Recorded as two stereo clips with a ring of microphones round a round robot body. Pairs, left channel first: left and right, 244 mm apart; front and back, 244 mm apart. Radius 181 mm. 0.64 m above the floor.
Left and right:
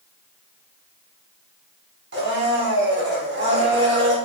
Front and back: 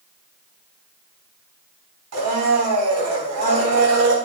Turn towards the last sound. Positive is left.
turn(degrees=-150)